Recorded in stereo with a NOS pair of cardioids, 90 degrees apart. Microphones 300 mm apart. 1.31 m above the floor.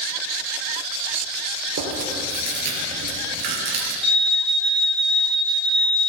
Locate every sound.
1.8 s chewing: 65° right, 3.5 m
4.0 s an alarm: 15° right, 2.5 m